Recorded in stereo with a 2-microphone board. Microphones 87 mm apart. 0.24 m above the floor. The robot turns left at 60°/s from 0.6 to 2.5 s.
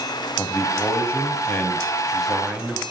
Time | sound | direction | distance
0.4 | a man speaking | 95° left | 1.8 m